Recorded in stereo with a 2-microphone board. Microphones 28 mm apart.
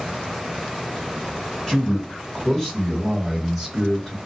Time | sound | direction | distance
1.7 | a man speaking | 5° left (ahead or behind) | 1.8 m